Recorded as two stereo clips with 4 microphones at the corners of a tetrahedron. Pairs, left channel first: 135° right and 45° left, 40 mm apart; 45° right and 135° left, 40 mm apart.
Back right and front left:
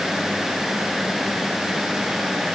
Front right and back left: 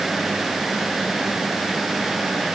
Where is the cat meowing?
No cat meowing in this recording.